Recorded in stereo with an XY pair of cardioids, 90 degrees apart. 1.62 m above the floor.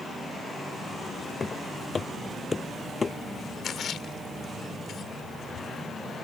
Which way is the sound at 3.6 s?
60° left.